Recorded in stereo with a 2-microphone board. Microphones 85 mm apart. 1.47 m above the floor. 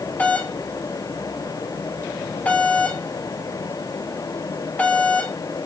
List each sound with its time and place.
0.2 s a doorbell: 15° left (ahead or behind), 2.5 m